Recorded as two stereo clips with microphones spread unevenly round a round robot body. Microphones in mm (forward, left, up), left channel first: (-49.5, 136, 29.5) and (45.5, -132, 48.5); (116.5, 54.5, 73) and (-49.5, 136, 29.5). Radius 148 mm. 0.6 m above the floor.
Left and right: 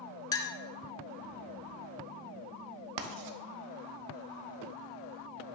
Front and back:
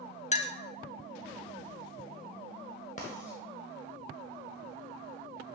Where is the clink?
35° left, 0.6 m.